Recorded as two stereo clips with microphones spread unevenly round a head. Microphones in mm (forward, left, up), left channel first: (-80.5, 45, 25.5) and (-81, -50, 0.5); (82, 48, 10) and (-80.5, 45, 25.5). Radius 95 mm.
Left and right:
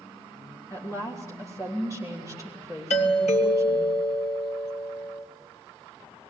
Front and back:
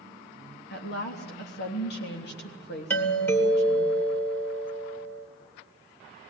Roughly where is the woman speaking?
Ahead.